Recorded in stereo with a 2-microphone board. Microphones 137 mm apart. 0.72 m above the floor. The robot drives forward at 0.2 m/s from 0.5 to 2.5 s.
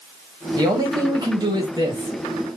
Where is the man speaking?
30° right (ahead or behind), 1.2 m.